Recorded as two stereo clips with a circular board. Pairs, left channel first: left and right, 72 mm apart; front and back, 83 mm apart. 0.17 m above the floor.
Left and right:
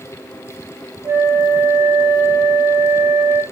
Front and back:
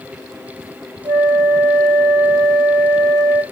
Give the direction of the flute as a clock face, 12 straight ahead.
4 o'clock.